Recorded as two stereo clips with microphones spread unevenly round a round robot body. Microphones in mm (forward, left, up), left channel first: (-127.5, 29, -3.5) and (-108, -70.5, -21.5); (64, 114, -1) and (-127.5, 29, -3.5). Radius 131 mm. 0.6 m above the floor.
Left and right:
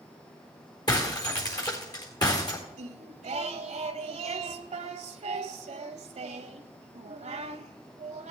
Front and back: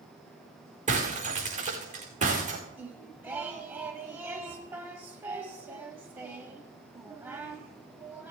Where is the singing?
75° right, 0.8 m.